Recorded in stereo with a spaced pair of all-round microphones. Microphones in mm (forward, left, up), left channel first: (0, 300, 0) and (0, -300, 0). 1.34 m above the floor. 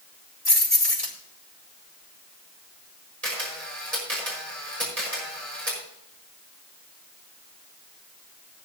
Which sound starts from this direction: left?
Keys jangling, at 0.5 s.